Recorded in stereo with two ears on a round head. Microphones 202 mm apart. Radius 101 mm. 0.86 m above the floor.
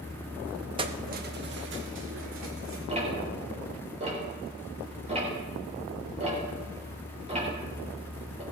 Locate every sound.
0.8 s keys jangling: 20° right (ahead or behind), 0.7 m; by 2.8 s 60° right (ahead or behind), 2.5 m
2.9 s ticking: 30° right (ahead or behind), 3.5 m